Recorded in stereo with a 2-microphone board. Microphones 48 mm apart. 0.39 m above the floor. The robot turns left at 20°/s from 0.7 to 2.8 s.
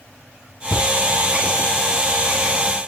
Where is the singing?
I don't hear singing.